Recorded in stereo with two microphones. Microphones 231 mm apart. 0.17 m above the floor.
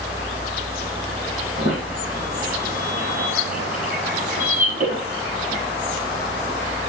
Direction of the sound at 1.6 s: 40° right (ahead or behind).